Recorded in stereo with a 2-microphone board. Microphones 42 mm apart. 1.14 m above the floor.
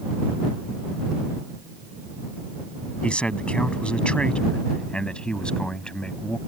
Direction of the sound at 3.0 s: 25° left (ahead or behind).